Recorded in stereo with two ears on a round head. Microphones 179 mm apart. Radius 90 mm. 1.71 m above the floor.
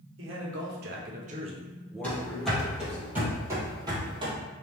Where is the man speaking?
70° right (ahead or behind), 1.3 m; by 3.0 s 40° left (ahead or behind), 1.1 m.